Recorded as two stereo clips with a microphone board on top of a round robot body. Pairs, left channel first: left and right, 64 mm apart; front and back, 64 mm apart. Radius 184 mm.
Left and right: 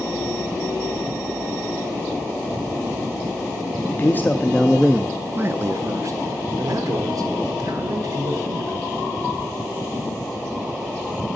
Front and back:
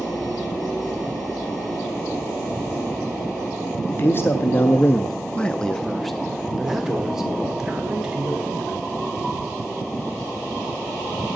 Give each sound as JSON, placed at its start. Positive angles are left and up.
{"t": 3.9, "sound": "a man speaking", "azimuth_deg": 45, "distance_m": 1.1}